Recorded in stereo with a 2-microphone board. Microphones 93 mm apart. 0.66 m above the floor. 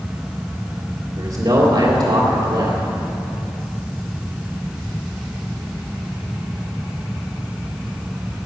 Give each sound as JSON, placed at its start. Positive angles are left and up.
{"t": 1.2, "sound": "a man speaking", "side_deg": -60, "distance_m": 2.5}